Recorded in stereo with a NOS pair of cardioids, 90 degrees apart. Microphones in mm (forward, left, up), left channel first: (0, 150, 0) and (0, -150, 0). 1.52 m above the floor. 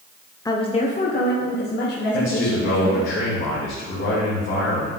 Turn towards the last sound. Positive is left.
turn(degrees=45)